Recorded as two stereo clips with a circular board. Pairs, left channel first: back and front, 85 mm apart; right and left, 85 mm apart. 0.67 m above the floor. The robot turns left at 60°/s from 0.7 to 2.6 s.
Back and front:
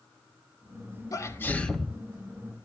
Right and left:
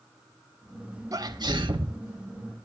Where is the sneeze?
135° left, 1.5 m; by 2.0 s 85° left, 1.5 m.